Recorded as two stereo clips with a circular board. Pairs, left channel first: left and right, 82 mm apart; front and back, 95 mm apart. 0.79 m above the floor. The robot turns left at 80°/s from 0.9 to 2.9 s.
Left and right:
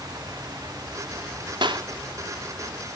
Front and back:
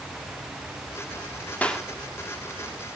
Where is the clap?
75° right, 1.7 m; by 1.9 s 95° right, 1.7 m.